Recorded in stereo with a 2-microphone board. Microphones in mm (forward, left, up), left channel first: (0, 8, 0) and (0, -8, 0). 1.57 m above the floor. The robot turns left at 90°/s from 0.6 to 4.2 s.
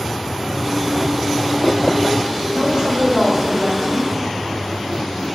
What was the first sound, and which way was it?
A woman speaking, 110° right.